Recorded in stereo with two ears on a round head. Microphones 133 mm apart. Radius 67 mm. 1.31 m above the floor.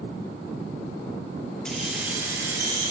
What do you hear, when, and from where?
1.6 s keys jangling: 5° left (ahead or behind), 0.6 m; by 2.9 s 25° right (ahead or behind), 1.2 m